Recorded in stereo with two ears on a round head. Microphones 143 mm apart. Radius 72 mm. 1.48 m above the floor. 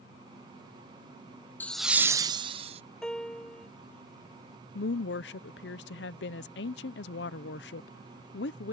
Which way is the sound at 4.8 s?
80° left.